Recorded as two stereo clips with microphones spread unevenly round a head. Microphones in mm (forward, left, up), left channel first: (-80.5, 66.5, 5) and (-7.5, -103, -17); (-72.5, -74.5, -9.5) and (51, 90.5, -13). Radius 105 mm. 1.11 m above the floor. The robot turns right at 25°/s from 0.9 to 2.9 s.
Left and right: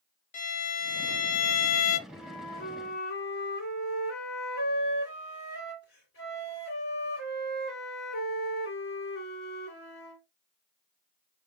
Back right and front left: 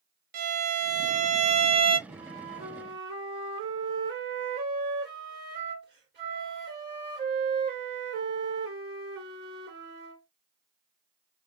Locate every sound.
0.3 s a violin: 90° left, 0.6 m; by 2.0 s 115° left, 0.6 m
2.1 s a flute: 70° left, 3 m; by 10.2 s 90° left, 3 m